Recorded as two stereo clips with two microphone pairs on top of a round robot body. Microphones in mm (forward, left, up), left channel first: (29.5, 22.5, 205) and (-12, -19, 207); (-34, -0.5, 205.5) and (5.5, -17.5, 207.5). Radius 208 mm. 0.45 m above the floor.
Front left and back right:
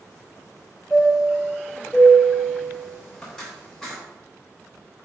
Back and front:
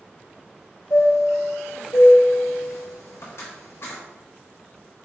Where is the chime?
125° left, 0.8 m.